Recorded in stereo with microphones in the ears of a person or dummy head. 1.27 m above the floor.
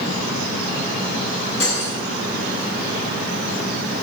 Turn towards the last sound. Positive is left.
turn(degrees=85)